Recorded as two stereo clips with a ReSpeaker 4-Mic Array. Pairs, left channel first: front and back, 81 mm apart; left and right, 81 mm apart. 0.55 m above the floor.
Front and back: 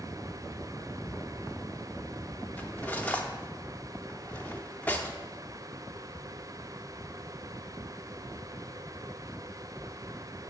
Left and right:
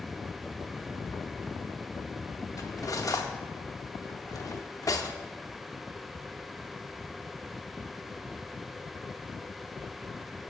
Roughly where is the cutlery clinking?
Ahead left.